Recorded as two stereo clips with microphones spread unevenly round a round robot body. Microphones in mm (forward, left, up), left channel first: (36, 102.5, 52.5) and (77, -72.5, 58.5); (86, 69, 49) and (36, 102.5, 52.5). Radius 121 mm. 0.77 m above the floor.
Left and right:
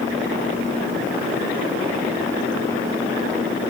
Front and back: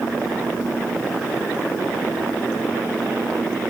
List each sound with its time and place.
Only background noise.